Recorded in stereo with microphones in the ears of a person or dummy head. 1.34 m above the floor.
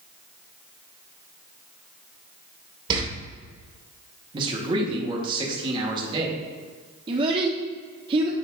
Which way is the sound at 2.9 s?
30° right (ahead or behind).